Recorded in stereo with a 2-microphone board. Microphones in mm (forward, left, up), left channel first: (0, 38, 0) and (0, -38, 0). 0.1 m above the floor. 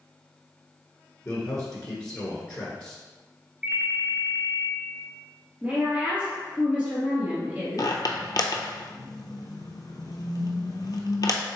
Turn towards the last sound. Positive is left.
turn(degrees=60)  # may be behind; listen again after turning